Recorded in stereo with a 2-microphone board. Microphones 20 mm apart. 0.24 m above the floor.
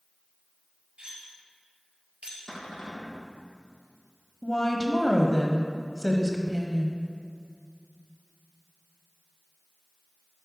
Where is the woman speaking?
20° left (ahead or behind), 0.9 m.